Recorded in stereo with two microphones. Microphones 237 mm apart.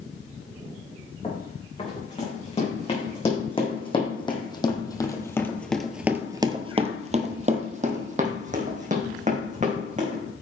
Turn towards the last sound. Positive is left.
turn(degrees=-30)  # may be behind; listen again after turning